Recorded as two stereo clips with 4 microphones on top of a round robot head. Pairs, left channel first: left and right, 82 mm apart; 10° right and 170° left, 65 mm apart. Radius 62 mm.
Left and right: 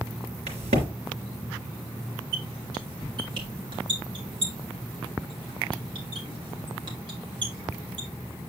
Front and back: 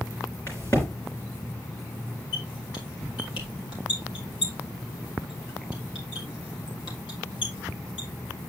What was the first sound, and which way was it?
A crack, 80° right.